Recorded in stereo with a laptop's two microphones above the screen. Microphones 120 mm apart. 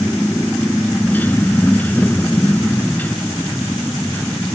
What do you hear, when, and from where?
0.0 s a motorcycle: 15° left (ahead or behind)